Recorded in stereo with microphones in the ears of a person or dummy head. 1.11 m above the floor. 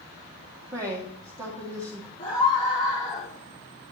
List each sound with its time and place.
0.7 s a woman speaking: 20° right (ahead or behind), 2 m
2.2 s a scream: 25° left (ahead or behind), 2.5 m